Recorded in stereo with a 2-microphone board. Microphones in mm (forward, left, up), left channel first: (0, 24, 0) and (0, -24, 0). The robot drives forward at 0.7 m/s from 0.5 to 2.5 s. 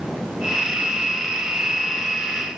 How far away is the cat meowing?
I don't hear a cat meowing.